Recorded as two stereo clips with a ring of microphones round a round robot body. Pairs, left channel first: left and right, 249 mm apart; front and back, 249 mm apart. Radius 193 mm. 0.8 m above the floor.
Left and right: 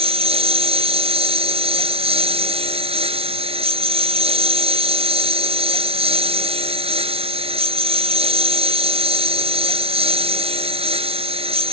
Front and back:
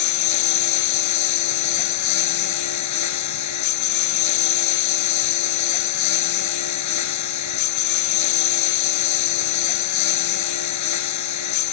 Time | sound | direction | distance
0.0 | a lawn mower | 20° right | ?